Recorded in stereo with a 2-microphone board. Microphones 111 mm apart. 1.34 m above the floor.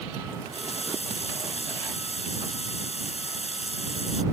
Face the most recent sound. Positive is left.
turn(degrees=70)  # may be behind; listen again after turning